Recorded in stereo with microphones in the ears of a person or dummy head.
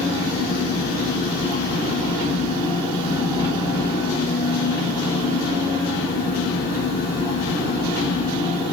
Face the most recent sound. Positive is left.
turn(degrees=25)  # may be behind; listen again after turning